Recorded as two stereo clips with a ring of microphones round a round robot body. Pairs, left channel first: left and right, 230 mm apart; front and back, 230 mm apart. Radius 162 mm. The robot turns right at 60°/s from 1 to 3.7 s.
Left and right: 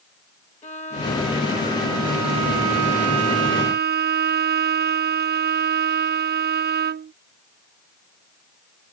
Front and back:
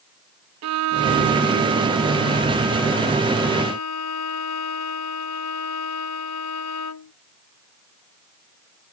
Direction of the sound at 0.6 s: 160° left.